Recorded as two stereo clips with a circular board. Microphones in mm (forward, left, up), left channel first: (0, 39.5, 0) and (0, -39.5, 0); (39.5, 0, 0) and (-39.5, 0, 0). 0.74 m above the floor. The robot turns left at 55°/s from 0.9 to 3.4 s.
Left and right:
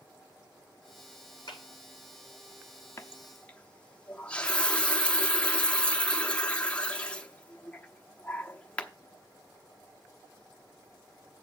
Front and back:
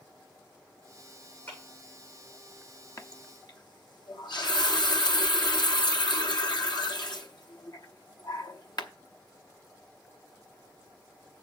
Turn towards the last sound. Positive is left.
turn(degrees=15)